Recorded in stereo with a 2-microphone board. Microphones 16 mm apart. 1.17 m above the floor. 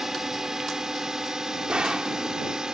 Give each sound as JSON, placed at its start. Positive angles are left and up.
{"t": 0.0, "sound": "a drone", "side_deg": -30}
{"t": 1.7, "sound": "a gunshot", "side_deg": -75}